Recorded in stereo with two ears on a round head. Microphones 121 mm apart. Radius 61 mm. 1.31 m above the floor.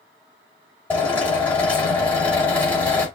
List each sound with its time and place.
0.9 s a drill: 10° left (ahead or behind), 4 m